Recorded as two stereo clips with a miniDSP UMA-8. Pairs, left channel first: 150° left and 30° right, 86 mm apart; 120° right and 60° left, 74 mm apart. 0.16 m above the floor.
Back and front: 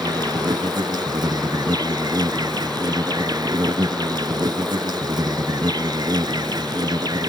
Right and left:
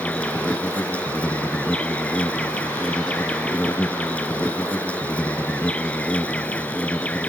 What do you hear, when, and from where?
0.0 s an insect: 50° right